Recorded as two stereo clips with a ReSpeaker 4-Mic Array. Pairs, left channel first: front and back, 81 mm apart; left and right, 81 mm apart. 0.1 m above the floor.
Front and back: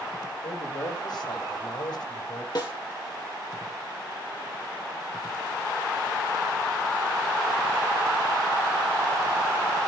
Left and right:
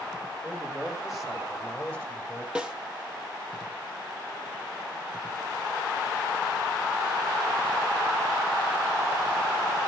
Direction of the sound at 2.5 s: 15° right.